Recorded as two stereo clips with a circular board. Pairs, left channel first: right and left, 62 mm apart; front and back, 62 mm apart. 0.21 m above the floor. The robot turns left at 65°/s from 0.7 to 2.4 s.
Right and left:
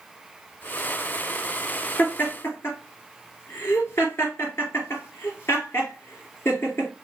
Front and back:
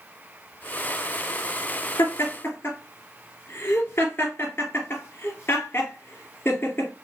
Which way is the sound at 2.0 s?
20° right.